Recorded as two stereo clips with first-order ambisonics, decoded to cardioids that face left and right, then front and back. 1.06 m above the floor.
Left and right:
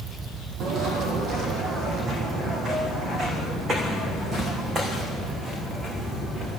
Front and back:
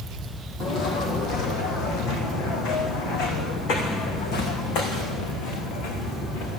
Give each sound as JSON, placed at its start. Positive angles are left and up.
{"t": 0.6, "sound": "footsteps", "azimuth_deg": -50, "distance_m": 2.0}